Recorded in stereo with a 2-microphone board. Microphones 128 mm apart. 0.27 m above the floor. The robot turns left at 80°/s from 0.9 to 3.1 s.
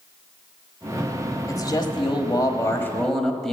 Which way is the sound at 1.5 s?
135° left.